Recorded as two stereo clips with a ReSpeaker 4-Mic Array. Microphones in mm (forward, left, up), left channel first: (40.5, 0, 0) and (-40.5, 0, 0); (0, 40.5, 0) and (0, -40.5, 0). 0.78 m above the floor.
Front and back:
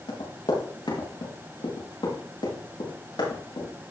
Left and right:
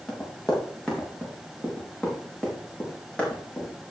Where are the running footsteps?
10° left, 6 m; by 3.9 s 15° left, 8.5 m.